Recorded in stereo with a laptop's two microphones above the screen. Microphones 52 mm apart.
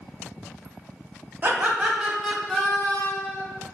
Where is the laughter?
35° right (ahead or behind), 0.7 m; by 3.4 s 35° left (ahead or behind), 0.8 m.